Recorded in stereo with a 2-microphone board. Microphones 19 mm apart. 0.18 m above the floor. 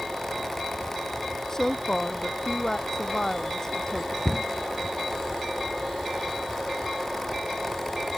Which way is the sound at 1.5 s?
20° left (ahead or behind).